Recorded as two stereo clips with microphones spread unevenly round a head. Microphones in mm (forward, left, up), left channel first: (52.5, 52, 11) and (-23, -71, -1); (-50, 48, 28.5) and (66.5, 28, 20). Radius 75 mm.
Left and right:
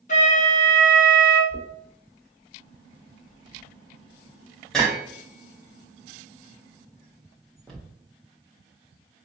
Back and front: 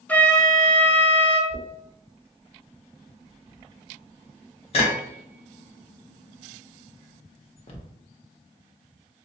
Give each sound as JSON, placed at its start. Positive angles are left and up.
{"t": 0.1, "sound": "a flute", "azimuth_deg": 95, "distance_m": 0.7}
{"t": 1.5, "sound": "knocking", "azimuth_deg": 140, "distance_m": 0.7}